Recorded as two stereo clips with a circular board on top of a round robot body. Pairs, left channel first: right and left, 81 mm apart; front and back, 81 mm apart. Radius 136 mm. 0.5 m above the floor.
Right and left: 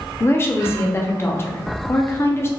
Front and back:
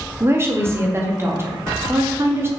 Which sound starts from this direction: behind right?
A woman speaking, at 0.2 s.